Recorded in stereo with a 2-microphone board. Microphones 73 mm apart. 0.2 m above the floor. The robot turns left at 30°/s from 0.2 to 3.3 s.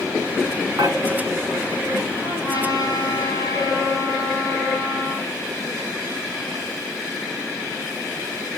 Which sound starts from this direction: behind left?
A trumpet, at 2.2 s.